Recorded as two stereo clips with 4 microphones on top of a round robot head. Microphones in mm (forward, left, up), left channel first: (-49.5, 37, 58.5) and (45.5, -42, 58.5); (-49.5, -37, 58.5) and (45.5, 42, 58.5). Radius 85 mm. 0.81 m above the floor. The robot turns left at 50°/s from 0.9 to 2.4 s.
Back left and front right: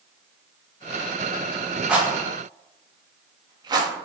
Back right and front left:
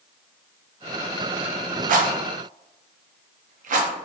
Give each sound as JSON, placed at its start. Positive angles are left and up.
{"t": 1.9, "sound": "a rattle", "azimuth_deg": 45, "distance_m": 0.5}